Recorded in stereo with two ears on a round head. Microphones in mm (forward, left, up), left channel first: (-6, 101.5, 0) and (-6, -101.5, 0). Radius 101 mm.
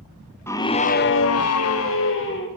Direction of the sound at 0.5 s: 10° left (ahead or behind).